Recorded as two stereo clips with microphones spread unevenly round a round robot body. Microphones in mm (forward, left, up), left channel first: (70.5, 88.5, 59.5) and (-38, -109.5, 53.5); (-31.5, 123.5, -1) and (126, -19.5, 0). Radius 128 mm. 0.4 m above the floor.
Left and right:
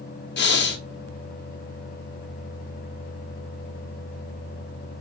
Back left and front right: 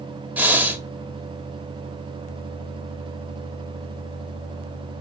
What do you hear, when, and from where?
0.4 s breathing: 40° left, 1.4 m